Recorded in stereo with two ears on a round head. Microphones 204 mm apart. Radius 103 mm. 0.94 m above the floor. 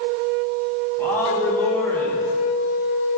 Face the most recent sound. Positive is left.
turn(degrees=10)  # may be behind; listen again after turning